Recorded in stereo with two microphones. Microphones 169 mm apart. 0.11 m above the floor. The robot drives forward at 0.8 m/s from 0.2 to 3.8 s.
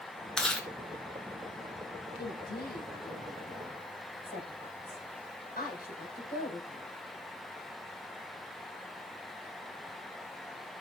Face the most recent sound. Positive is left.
turn(degrees=55)  # may be behind; listen again after turning